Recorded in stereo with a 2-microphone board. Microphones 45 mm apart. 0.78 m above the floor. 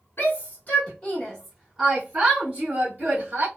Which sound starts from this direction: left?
A shout, at 0.2 s.